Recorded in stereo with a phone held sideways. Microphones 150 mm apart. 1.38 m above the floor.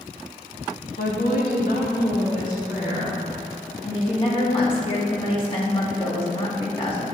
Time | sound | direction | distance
1.0 | a woman speaking | 80° left | 1.9 m
3.8 | a woman speaking | 35° left (ahead or behind) | 2 m